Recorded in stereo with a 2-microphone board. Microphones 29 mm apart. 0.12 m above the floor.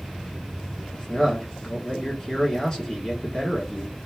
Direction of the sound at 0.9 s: 25° left (ahead or behind).